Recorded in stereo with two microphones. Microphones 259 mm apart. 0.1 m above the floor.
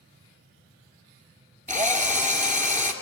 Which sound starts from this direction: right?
A drill, at 1.7 s.